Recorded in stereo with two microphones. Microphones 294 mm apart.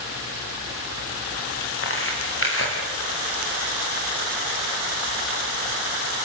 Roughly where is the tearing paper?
Left.